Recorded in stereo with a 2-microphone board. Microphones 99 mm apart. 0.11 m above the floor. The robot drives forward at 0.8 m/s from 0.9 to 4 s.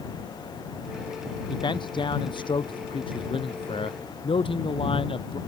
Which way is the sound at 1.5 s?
50° left (ahead or behind).